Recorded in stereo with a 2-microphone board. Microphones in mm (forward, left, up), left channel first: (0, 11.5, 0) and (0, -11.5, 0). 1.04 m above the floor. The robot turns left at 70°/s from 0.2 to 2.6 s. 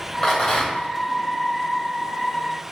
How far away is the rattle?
About 1.7 m.